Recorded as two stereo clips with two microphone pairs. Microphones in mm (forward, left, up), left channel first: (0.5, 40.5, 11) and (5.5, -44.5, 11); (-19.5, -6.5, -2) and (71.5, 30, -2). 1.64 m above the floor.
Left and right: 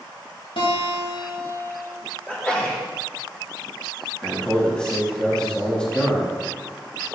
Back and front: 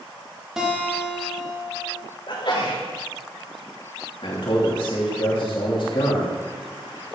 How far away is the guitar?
About 3 m.